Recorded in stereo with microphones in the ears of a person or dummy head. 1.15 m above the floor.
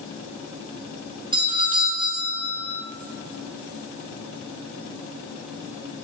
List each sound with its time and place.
1.3 s a doorbell: 25° right (ahead or behind), 0.7 m